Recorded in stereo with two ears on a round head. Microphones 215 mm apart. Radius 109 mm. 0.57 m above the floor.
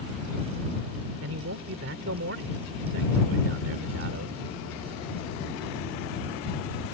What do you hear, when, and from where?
1.2 s a man speaking: 60° right (ahead or behind)